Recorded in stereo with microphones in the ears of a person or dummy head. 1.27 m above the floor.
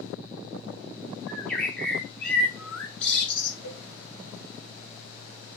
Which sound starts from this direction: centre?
A bird, at 1.3 s.